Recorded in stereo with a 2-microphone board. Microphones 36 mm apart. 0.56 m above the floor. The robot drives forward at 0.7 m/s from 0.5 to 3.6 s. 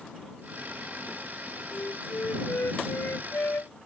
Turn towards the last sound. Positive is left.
turn(degrees=75)  # may be behind; listen again after turning